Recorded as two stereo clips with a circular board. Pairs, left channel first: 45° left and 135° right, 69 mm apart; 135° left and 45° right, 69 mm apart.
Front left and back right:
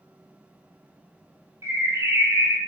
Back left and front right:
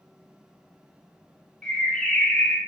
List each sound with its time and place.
1.6 s a bird: 155° right, 0.7 m